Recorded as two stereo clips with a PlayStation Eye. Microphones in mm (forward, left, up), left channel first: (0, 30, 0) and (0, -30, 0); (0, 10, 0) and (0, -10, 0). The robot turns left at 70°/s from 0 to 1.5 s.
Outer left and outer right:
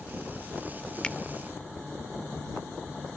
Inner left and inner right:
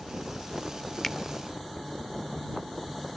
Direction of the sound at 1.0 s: 15° left (ahead or behind).